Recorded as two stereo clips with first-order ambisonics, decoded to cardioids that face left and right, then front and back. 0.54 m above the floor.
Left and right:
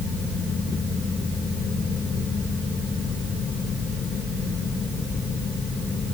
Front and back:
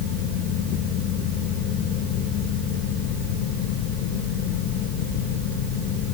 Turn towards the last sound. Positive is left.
No sound to turn to.